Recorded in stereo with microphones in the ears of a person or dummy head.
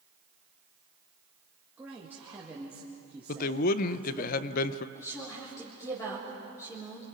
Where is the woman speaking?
15° left (ahead or behind), 3.5 m.